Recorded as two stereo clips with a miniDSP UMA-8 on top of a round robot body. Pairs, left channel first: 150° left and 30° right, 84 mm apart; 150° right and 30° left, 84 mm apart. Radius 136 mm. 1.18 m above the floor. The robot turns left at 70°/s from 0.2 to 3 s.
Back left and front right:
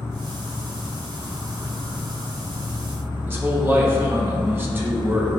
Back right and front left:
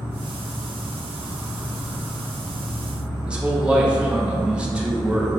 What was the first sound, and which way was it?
An insect, 95° left.